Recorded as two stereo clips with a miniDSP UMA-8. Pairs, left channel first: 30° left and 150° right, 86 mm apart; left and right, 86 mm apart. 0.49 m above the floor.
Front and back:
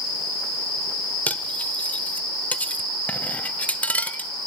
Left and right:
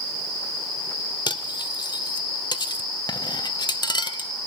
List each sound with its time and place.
1.3 s cutlery clinking: 100° left, 0.9 m